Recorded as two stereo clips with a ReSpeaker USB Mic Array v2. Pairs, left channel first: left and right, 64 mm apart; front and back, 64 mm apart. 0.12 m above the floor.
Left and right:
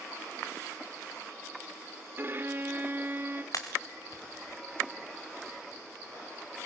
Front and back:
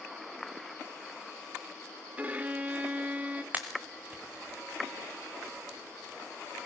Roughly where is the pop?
Behind left.